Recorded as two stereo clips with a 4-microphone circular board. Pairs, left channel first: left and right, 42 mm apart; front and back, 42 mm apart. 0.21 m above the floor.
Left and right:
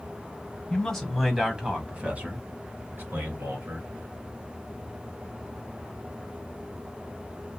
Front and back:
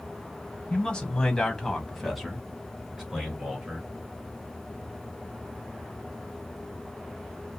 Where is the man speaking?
30° left, 1.2 m; by 3.9 s 105° right, 2 m.